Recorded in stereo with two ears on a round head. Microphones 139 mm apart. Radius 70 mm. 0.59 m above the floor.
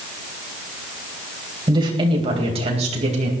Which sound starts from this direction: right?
A woman speaking, at 1.7 s.